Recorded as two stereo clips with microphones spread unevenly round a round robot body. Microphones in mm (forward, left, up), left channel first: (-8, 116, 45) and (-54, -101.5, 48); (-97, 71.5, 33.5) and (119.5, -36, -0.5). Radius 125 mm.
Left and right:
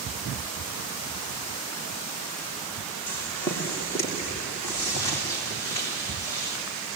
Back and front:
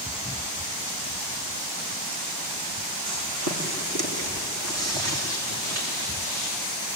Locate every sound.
3.1 s footsteps: 5° right, 6 m; by 6.6 s straight ahead, 11 m